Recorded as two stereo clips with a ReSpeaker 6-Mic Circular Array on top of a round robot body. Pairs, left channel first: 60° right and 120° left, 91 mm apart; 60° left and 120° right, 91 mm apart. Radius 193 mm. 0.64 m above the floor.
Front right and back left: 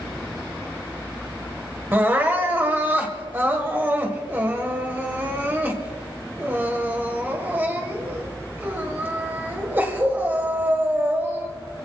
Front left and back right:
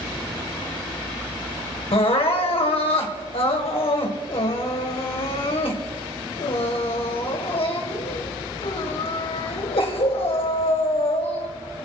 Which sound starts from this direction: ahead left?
Crying, at 1.9 s.